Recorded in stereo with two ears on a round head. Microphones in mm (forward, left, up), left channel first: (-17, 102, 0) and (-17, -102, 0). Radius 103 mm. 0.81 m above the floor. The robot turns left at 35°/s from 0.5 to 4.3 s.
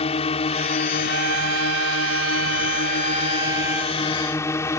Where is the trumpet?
75° right; by 4.0 s 175° right.